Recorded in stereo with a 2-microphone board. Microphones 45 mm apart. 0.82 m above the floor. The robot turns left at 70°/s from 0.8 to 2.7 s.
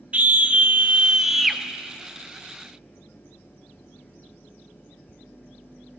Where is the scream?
135° right, 0.7 m; by 1.6 s 170° left, 0.7 m.